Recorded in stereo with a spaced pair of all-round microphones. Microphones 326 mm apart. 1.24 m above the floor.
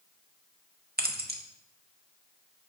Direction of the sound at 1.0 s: 30° right (ahead or behind).